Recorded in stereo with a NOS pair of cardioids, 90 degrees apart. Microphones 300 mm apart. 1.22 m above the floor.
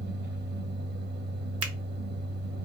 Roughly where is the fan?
Ahead right.